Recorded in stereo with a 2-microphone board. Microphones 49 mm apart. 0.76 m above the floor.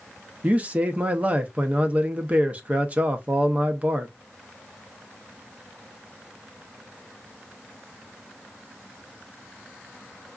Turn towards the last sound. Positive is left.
turn(degrees=-30)  # may be behind; listen again after turning